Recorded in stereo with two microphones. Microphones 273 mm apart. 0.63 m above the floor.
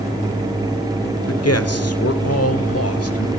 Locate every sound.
1.3 s a man speaking: 60° left (ahead or behind), 1.5 m